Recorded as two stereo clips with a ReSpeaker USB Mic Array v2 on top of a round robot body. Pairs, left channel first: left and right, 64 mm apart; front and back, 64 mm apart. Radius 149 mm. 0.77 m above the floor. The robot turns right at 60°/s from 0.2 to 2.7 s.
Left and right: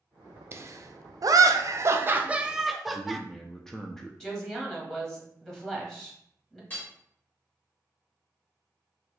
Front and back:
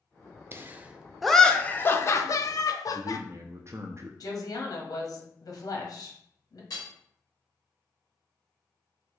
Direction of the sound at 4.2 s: 10° left.